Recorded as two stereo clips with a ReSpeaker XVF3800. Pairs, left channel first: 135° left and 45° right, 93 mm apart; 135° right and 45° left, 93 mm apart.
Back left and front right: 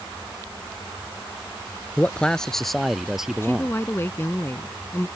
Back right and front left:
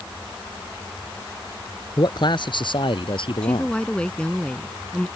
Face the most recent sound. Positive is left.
turn(degrees=160)